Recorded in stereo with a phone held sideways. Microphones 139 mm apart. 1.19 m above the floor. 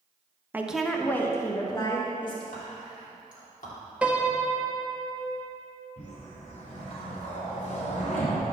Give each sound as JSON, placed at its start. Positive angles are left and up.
{"t": 0.5, "sound": "a woman speaking", "side_deg": -15, "distance_m": 0.8}
{"t": 2.5, "sound": "whispering", "side_deg": 80, "distance_m": 3.0}
{"t": 4.0, "sound": "a piano", "side_deg": -10, "distance_m": 0.8}
{"t": 6.0, "sound": "a whoosh", "side_deg": 55, "distance_m": 3.5}